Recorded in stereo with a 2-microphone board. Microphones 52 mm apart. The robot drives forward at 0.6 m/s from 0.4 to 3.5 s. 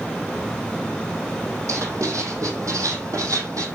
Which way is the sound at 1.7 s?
70° right (ahead or behind).